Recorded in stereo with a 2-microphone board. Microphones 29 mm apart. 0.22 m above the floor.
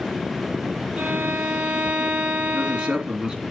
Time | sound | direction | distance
1.0 | a violin | 50° right (ahead or behind) | 2.5 m
2.5 | a man speaking | 35° right (ahead or behind) | 2.5 m